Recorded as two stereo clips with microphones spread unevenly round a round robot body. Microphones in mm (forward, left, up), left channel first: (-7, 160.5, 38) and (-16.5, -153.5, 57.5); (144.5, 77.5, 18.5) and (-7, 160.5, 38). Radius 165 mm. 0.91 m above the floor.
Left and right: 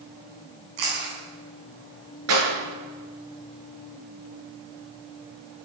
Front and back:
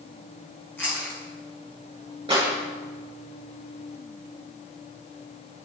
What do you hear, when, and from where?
0.8 s chewing: 115° right, 8.5 m
2.3 s a clap: 135° right, 9.5 m